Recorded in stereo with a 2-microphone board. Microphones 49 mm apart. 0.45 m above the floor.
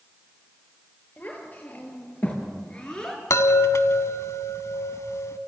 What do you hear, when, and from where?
1.2 s a child speaking: 30° left (ahead or behind), 6 m; by 3.2 s 10° left (ahead or behind), 4 m
3.3 s a chime: 85° left, 0.9 m